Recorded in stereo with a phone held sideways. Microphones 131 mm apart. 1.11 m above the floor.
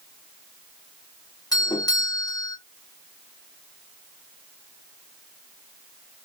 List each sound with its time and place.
1.5 s a doorbell: 30° left (ahead or behind), 0.9 m